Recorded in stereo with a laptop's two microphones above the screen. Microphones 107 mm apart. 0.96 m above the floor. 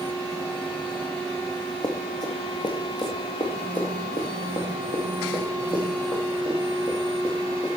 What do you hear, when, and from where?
1.8 s running footsteps: 40° left (ahead or behind), 2 m; by 7.7 s 45° left (ahead or behind), 5 m